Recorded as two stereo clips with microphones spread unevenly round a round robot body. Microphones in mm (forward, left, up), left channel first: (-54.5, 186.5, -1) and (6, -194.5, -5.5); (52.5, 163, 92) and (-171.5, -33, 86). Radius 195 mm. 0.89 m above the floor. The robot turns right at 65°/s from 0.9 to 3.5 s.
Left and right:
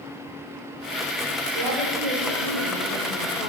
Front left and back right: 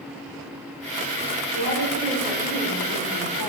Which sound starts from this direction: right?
A woman speaking, at 1.6 s.